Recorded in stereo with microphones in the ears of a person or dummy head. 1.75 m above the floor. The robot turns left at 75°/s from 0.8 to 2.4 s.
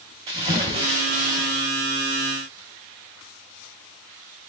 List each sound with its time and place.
0.3 s a splash: 45° right, 1.9 m; by 1.7 s 110° right, 1.9 m